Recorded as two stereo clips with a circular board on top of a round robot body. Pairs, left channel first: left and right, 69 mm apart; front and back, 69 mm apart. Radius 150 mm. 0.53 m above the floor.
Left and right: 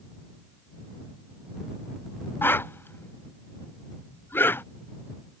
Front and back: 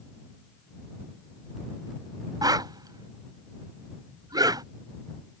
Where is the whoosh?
150° left.